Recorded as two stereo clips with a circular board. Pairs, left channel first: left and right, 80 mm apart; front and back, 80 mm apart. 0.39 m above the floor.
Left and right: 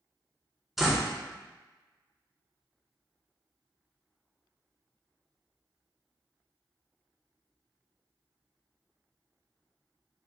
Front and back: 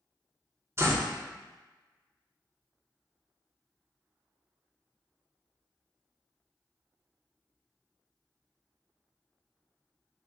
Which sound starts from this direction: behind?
A door slam, at 0.8 s.